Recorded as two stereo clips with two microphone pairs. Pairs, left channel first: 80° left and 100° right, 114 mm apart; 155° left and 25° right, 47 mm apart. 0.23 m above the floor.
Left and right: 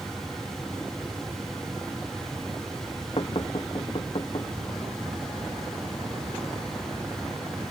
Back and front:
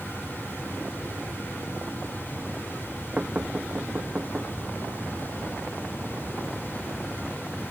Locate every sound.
3.2 s knocking: 40° left